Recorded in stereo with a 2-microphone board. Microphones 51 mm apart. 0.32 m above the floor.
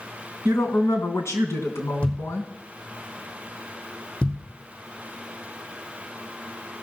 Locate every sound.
0.5 s a woman speaking: 65° left (ahead or behind), 3 m
2.0 s a thud: 20° left (ahead or behind), 3 m